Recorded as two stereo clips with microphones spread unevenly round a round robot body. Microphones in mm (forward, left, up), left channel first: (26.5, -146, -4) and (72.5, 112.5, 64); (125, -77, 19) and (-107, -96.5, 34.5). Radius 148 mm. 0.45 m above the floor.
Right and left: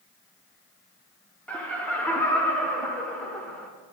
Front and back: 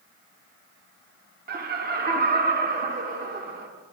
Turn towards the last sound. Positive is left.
turn(degrees=-160)